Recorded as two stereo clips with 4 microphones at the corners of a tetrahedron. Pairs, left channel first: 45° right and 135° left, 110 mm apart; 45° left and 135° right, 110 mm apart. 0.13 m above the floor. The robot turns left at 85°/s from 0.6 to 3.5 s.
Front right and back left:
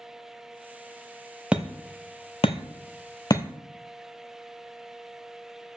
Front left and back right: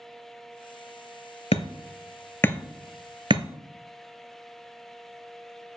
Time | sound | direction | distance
1.5 | hammering | 55° left | 0.7 m